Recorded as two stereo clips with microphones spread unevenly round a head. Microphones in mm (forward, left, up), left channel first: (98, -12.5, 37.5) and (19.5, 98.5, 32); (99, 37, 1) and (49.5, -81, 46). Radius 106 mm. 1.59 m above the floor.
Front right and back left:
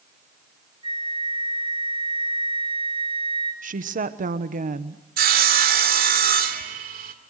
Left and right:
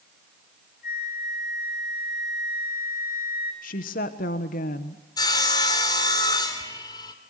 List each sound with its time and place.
0.8 s a flute: 70° left, 8 m
3.6 s a woman speaking: 100° left, 1.2 m
5.2 s sawing: 150° left, 1.9 m